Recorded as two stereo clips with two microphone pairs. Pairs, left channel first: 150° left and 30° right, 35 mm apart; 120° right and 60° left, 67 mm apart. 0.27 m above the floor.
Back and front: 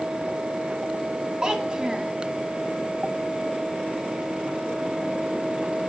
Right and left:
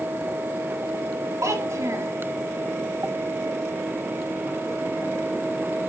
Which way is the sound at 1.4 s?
30° left.